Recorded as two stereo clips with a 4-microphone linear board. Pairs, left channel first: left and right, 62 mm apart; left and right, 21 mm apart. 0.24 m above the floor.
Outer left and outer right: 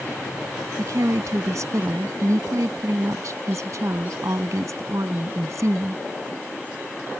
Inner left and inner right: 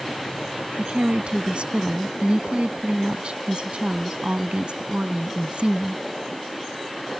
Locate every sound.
0.8 s a woman speaking: 55° right (ahead or behind)